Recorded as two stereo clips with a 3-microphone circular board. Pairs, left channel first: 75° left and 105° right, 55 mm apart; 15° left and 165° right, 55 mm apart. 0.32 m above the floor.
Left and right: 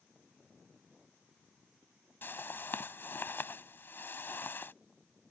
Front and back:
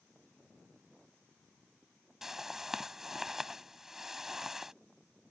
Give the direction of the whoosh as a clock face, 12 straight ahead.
8 o'clock.